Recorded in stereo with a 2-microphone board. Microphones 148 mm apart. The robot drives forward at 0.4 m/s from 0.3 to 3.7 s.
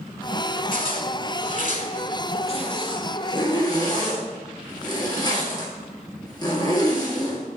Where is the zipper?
65° left (ahead or behind), 0.6 m; by 7.4 s 30° left (ahead or behind), 1.2 m.